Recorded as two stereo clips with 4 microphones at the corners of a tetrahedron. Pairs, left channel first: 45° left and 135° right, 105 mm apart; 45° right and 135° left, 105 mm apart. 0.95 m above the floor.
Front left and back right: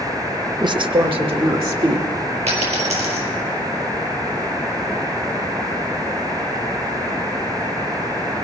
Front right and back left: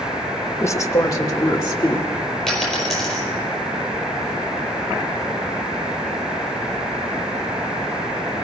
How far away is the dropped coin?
About 4.5 m.